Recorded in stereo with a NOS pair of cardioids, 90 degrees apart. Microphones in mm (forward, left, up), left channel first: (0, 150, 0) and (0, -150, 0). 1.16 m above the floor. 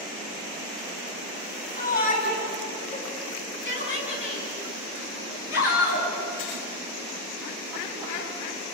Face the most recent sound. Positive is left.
turn(degrees=55)